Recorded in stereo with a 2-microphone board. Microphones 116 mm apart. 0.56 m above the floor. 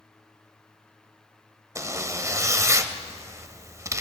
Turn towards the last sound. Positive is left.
turn(degrees=-25)  # may be behind; listen again after turning